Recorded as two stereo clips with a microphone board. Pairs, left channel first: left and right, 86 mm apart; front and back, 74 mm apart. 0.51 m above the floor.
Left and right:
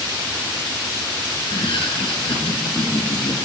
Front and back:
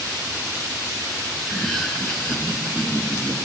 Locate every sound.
1.4 s laughter: 90° left, 7 m; by 3.4 s 70° left, 6 m